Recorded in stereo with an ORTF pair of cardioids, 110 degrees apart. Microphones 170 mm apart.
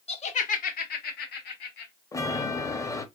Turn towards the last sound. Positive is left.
turn(degrees=20)